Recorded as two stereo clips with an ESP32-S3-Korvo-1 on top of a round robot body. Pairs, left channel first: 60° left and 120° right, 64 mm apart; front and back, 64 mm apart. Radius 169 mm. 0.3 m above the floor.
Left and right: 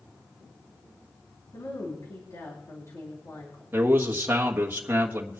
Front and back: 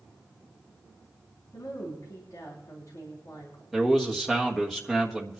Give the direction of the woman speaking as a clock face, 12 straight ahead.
11 o'clock.